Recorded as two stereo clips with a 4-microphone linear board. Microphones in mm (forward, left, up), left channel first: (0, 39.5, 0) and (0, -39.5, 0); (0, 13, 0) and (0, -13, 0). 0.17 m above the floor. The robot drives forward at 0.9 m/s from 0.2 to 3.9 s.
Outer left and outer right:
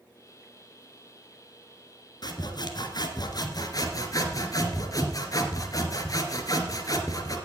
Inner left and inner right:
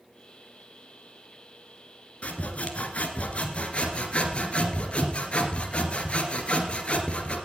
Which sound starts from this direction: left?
Sawing, at 2.2 s.